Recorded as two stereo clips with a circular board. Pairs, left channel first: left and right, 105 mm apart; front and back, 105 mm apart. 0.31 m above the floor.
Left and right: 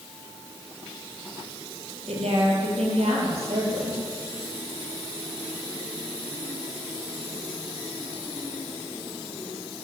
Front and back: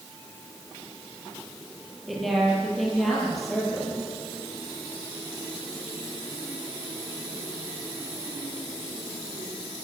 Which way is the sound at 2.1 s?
90° right.